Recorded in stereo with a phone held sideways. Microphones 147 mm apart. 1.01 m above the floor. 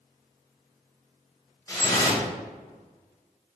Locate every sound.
1.7 s dripping: 25° left (ahead or behind), 1.2 m